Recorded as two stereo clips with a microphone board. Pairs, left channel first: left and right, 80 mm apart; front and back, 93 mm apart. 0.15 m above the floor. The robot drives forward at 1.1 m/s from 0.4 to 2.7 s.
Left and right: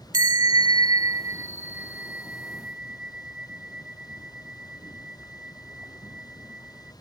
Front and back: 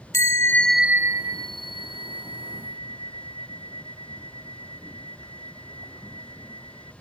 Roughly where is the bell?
Ahead right.